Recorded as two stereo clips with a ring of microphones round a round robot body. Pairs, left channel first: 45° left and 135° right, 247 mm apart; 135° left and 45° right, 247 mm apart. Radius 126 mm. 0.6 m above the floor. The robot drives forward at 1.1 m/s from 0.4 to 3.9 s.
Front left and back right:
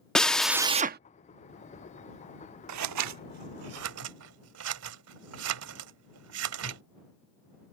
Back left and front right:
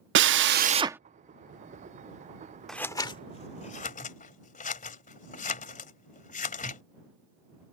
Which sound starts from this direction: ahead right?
A drill, at 0.1 s.